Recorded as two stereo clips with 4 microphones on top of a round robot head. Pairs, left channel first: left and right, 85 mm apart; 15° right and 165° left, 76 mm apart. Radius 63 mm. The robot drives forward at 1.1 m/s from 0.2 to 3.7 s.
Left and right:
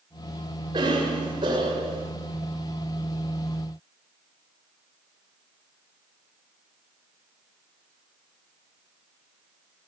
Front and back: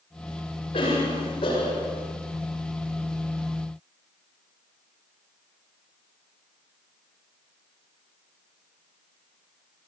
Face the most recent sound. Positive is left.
turn(degrees=-60)